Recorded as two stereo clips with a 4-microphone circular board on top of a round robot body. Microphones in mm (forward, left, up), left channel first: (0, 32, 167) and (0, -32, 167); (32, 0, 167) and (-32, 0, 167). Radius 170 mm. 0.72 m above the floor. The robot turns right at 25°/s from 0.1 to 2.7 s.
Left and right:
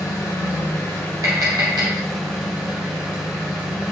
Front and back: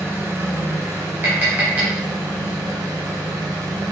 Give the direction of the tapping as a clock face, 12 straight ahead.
4 o'clock.